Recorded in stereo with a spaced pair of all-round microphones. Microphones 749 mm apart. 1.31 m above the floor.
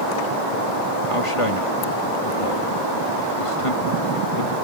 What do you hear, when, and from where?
1.1 s a man speaking: 45° left (ahead or behind)